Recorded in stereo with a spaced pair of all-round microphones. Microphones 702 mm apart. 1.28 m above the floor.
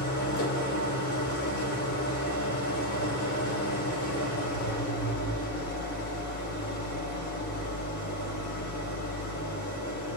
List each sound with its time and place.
0.0 s an engine running: 25° left (ahead or behind), 3 m